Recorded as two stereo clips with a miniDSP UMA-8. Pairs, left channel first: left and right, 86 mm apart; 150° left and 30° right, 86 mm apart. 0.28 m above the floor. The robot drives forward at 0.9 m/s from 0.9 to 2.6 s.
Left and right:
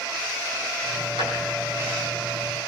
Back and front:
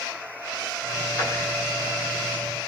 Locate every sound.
1.2 s a drawer: 95° right, 6.5 m